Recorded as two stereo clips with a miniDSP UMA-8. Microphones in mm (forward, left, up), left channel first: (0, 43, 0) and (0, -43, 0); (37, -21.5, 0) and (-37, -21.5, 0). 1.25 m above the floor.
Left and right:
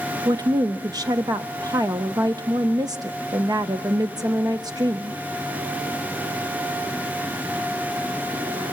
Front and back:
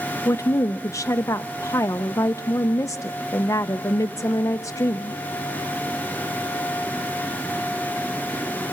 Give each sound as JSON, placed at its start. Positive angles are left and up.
{"t": 0.2, "sound": "a woman speaking", "azimuth_deg": -50, "distance_m": 0.7}